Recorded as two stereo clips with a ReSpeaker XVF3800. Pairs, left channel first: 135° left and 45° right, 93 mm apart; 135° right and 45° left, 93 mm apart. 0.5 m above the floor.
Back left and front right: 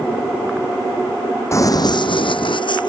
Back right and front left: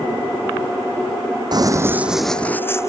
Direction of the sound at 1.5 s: 80° left.